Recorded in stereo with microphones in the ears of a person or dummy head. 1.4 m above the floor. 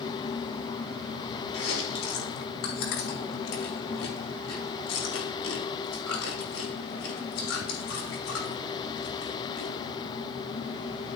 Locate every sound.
1.5 s chewing: 85° left, 3 m